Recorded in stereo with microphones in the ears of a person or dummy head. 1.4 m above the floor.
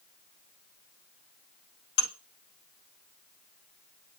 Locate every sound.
2.0 s dishes clattering: 65° left (ahead or behind), 1.6 m